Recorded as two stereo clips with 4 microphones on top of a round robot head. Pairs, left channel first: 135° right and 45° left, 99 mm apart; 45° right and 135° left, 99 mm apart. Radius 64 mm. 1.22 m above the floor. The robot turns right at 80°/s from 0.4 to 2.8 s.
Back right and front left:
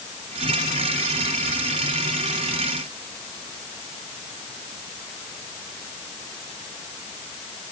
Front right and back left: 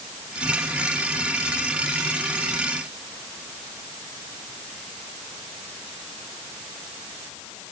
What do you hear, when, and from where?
Only background noise.